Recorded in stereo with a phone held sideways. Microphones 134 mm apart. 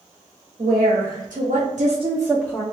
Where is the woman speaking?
85° right, 1.8 m; by 2.6 s 20° left (ahead or behind), 0.7 m.